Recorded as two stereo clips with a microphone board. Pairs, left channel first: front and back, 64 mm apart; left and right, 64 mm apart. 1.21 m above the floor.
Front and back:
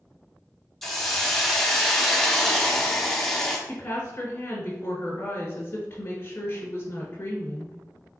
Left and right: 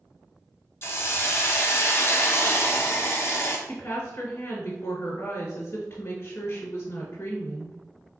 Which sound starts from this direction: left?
A hiss, at 0.8 s.